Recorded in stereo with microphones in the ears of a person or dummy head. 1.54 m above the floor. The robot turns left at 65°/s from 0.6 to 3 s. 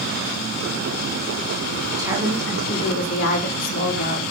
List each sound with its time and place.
2.0 s a woman speaking: 160° right, 3.5 m; by 4.2 s 135° left, 3.5 m